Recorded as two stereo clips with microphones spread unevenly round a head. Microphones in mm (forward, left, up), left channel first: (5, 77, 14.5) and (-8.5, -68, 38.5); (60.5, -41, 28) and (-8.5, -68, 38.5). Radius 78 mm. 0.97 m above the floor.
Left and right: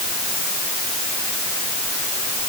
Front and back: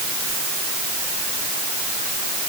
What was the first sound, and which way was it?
Only background noise.